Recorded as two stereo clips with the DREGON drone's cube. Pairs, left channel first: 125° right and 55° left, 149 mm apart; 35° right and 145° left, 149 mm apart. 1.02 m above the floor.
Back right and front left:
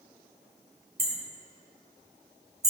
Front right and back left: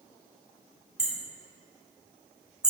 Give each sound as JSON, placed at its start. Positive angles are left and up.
{"t": 1.0, "sound": "hammering", "azimuth_deg": 60, "distance_m": 1.9}